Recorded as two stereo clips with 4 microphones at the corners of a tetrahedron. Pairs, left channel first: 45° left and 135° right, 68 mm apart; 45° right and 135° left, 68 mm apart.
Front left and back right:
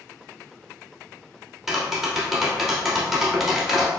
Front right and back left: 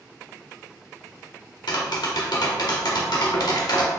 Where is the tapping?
50° right, 1.0 m.